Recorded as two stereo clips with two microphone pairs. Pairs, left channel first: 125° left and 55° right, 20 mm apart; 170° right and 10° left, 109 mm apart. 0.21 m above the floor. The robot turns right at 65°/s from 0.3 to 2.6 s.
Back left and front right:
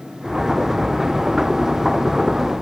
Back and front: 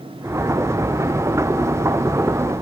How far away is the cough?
I don't hear a cough.